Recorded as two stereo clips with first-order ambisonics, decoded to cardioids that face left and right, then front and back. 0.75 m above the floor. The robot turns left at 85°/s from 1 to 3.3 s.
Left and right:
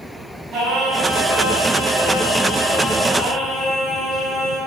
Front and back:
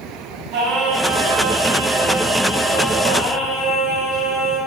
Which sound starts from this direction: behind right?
Singing, at 0.5 s.